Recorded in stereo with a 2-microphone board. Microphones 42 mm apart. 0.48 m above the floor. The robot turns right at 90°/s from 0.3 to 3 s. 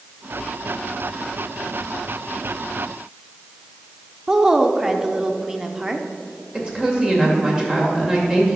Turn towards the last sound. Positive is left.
turn(degrees=-20)  # may be behind; listen again after turning